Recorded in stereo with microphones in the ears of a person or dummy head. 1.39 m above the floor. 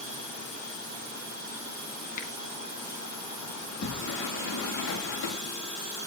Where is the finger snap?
45° left (ahead or behind), 3.5 m.